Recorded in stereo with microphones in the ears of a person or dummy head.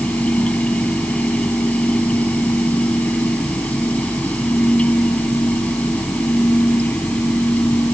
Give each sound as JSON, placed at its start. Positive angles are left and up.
{"t": 0.0, "sound": "a fan", "side_deg": 10}